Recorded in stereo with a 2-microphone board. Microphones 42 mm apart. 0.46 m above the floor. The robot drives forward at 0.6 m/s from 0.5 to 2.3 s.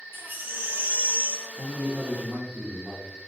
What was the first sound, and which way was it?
A baby crying, 55° right (ahead or behind).